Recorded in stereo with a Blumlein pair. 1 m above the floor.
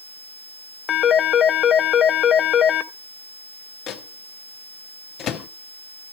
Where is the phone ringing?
25° left, 0.8 m.